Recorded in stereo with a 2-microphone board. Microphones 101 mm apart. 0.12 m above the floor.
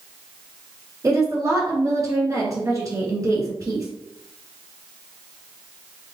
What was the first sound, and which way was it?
A woman speaking, 35° right (ahead or behind).